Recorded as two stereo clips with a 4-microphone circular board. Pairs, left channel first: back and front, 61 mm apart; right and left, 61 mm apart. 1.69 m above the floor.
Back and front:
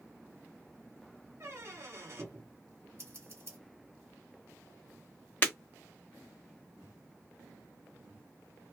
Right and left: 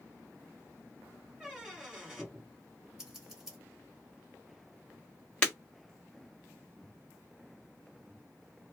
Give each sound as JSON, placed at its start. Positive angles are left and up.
{"t": 1.4, "sound": "a squeak", "azimuth_deg": 10, "distance_m": 1.1}
{"t": 3.0, "sound": "scissors", "azimuth_deg": 10, "distance_m": 1.2}
{"t": 5.4, "sound": "breaking glass", "azimuth_deg": -145, "distance_m": 1.3}